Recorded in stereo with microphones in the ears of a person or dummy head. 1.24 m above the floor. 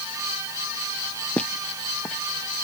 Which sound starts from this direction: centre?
Footsteps, at 1.4 s.